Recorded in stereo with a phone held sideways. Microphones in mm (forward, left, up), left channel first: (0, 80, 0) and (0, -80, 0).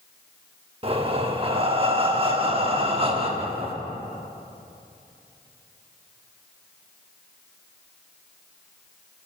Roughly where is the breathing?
Right.